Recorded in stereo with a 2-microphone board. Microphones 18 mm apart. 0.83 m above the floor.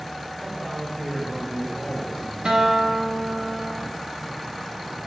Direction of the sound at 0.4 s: 10° left (ahead or behind).